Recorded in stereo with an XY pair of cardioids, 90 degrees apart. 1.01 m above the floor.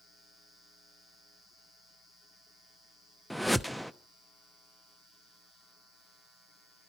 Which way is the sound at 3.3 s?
Straight ahead.